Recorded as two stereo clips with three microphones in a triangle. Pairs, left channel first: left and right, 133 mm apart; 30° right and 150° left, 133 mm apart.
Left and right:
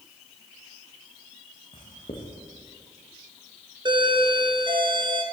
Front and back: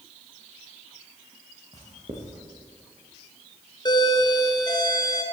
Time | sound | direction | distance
1.7 | writing | 120° left | 5.5 m
3.9 | a doorbell | 65° right | 2.5 m